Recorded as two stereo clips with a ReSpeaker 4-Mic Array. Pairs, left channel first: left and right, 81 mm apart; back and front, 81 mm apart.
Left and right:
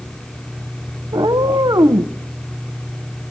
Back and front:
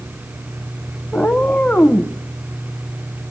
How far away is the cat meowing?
About 0.7 m.